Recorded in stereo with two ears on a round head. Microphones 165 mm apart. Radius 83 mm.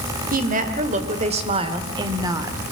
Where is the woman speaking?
45° right (ahead or behind), 2 m; by 2.6 s 15° right (ahead or behind), 1.6 m.